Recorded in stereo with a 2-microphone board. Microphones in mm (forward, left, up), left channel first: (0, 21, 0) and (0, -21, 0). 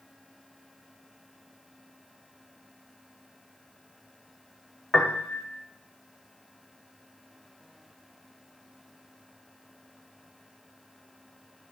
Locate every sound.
4.9 s a piano: 20° left (ahead or behind), 1.1 m